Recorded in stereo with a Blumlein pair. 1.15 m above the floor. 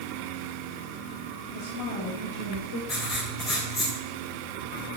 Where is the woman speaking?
45° left, 3 m; by 2.8 s 55° left, 4 m.